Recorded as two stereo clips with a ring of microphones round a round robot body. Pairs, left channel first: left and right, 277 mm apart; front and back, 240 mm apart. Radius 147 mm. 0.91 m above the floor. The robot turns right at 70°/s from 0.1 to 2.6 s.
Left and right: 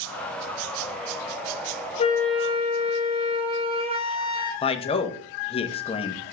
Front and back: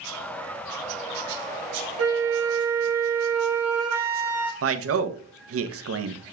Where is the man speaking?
160° left, 1.0 m.